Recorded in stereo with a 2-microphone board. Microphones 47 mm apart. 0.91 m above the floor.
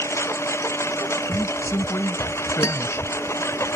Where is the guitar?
85° left.